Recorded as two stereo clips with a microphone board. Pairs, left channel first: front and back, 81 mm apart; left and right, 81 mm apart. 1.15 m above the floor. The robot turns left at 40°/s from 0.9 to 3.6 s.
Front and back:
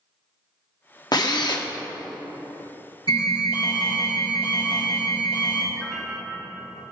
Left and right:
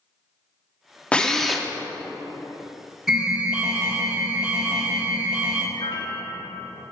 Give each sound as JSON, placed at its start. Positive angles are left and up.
{"t": 1.1, "sound": "a drill", "azimuth_deg": 15, "distance_m": 0.9}
{"t": 3.1, "sound": "an alarm", "azimuth_deg": -5, "distance_m": 1.9}
{"t": 5.7, "sound": "a piano", "azimuth_deg": 85, "distance_m": 1.3}